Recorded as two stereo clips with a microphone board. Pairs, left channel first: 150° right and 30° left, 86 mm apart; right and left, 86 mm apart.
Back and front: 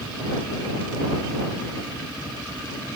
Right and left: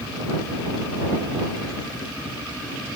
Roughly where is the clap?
No clap in this recording.